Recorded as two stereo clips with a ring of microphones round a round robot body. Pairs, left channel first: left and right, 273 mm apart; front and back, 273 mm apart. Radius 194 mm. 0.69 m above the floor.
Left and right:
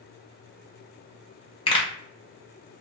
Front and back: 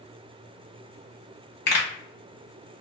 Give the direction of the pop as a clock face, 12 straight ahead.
11 o'clock.